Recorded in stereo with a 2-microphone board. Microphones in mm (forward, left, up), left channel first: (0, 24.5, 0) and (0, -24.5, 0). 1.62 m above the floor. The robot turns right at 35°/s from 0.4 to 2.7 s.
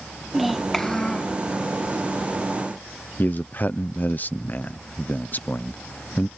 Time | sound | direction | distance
0.3 | a child speaking | 5° right | ?
3.2 | a man speaking | 40° left (ahead or behind) | ?